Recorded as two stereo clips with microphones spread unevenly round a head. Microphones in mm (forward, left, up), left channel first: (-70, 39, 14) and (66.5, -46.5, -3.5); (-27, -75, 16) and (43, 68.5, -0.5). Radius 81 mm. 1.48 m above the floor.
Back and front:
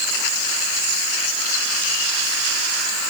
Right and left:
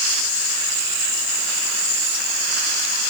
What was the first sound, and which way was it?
Only background noise.